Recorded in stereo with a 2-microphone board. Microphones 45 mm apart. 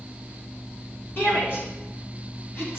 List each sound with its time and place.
1.2 s a shout: 55° left (ahead or behind), 2 m; by 2.8 s 60° left (ahead or behind), 2.5 m